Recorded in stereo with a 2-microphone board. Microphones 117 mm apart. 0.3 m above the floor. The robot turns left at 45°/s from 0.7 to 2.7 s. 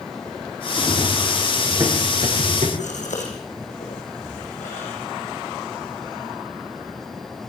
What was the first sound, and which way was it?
Running footsteps, 15° left (ahead or behind).